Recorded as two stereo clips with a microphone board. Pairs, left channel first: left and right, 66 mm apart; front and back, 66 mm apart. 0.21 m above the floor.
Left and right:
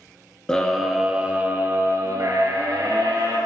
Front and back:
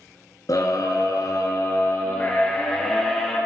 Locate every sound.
0.5 s a scream: 10° left, 2.5 m; by 3.4 s 80° right, 4 m